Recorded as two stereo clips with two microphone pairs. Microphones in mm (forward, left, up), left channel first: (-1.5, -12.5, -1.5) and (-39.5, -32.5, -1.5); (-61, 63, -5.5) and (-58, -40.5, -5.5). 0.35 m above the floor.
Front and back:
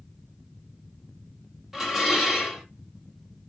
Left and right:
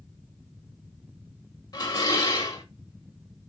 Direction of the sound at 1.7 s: 125° left.